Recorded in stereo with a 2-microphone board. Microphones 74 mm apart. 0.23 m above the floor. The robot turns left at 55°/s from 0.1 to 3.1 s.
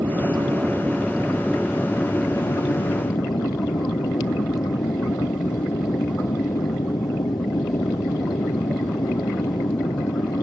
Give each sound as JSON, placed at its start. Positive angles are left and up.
{"t": 0.0, "sound": "an aircraft", "azimuth_deg": -105}